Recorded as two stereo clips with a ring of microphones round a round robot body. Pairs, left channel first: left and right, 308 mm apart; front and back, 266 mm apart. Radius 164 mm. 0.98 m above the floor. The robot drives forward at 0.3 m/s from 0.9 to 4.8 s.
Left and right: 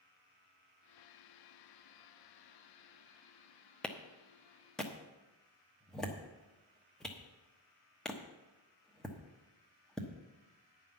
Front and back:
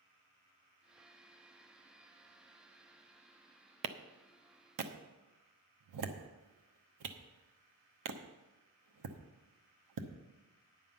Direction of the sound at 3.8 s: 175° left.